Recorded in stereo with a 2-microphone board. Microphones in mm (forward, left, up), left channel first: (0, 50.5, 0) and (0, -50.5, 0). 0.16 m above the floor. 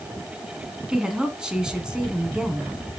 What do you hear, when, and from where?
0.9 s a woman speaking: 10° right (ahead or behind), 1.5 m